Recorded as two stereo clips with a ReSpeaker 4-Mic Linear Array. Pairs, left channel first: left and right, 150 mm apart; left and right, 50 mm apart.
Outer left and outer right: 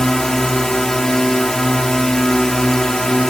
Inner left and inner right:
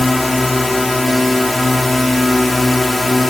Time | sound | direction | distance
0.0 | a drone | 5° left (ahead or behind) | ?